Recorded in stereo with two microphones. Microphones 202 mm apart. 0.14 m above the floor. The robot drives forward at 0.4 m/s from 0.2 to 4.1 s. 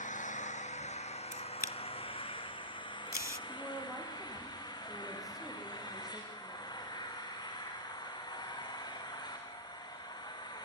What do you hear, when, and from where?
0.0 s an engine running: 40° left (ahead or behind), 1.7 m; by 10.7 s 20° left (ahead or behind), 3 m
1.3 s a camera shutter: 40° left (ahead or behind), 0.9 m; by 3.4 s 45° left (ahead or behind), 0.8 m
3.5 s a woman speaking: centre (ahead or behind), 5.5 m